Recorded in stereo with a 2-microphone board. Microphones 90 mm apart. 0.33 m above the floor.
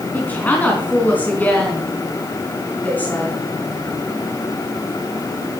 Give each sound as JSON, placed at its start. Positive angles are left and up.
{"t": 0.1, "sound": "a woman speaking", "side_deg": 15, "distance_m": 3.0}